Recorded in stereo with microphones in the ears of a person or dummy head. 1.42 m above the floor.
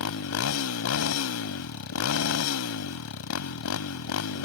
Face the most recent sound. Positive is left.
turn(degrees=80)